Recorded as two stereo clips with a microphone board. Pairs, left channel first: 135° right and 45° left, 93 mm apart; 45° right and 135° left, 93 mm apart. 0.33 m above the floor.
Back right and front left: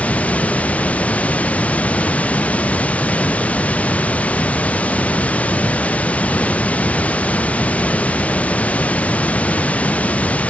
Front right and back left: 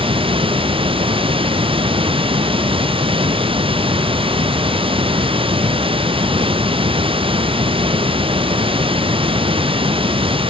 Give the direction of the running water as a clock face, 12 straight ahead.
7 o'clock.